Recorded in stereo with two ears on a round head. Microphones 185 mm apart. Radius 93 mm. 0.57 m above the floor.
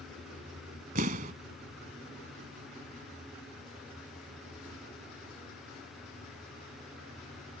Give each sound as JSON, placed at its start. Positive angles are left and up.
{"t": 0.9, "sound": "an explosion", "side_deg": -40}